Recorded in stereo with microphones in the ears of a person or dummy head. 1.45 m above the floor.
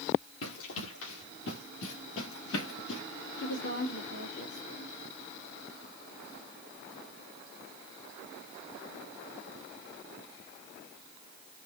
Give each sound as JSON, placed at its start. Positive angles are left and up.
{"t": 0.4, "sound": "running footsteps", "side_deg": 80, "distance_m": 7.0}
{"t": 3.4, "sound": "a woman speaking", "side_deg": 65, "distance_m": 4.5}